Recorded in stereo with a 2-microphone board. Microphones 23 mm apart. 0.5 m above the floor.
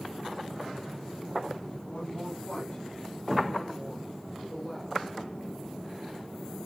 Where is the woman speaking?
20° left (ahead or behind), 5 m; by 5.1 s 30° left (ahead or behind), 6 m.